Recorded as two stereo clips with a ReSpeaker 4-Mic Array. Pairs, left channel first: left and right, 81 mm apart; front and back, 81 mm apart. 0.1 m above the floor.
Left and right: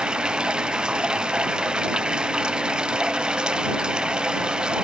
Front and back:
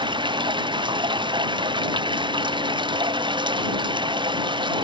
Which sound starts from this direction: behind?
Running water, at 0.0 s.